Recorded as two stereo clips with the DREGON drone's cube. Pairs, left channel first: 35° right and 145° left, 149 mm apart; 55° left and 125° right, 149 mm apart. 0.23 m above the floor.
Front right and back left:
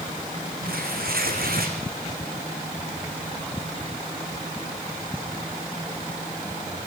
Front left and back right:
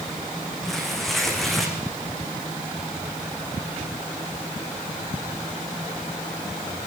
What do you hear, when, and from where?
0.6 s tearing paper: 145° left, 5.5 m